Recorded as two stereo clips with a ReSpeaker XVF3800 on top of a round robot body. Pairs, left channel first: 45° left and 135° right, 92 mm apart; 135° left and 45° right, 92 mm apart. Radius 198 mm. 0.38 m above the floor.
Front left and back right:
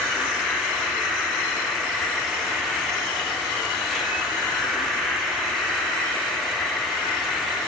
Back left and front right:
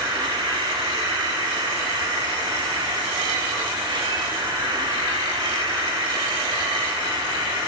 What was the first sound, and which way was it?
An insect, 45° right.